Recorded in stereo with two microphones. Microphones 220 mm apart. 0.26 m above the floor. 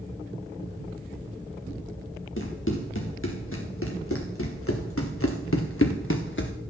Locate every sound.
2.4 s running footsteps: 65° left (ahead or behind), 3.5 m; by 6.5 s 55° left (ahead or behind), 1.6 m